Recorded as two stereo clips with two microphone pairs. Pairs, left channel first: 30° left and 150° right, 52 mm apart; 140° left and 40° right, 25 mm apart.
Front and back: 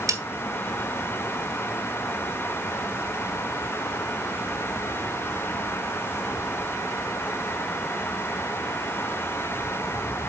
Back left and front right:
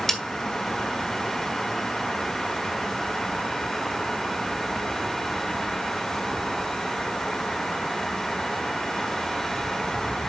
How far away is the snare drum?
About 1.7 m.